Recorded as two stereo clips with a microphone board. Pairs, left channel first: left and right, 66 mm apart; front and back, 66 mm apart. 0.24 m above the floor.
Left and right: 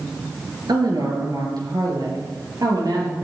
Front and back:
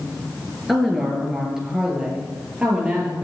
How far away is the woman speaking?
About 3.5 m.